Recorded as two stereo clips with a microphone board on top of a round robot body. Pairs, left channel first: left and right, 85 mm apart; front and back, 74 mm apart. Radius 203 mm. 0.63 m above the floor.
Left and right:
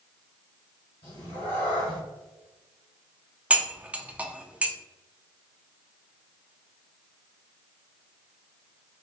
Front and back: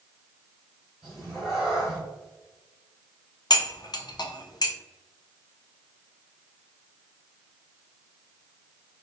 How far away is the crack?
I don't hear a crack.